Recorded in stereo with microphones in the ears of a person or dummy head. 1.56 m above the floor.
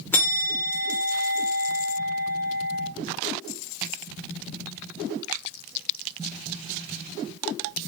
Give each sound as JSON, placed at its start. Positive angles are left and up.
{"t": 0.1, "sound": "a bell", "side_deg": 10, "distance_m": 1.0}